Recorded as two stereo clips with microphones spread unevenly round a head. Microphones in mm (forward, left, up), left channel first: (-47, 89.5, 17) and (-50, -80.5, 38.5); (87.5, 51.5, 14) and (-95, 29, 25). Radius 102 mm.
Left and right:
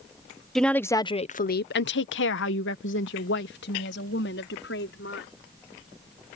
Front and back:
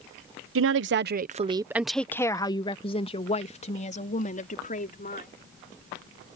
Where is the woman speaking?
175° left; by 5.3 s 50° left.